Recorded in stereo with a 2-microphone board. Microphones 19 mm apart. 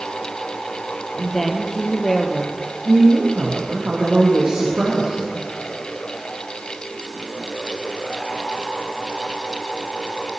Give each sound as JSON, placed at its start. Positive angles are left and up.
{"t": 1.2, "sound": "a woman speaking", "side_deg": 20, "distance_m": 3.0}
{"t": 2.9, "sound": "a woman speaking", "side_deg": -60, "distance_m": 6.5}